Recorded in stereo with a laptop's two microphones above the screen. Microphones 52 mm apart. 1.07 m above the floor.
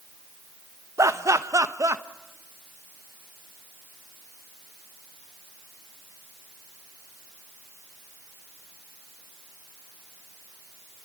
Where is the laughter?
70° right (ahead or behind), 1.0 m.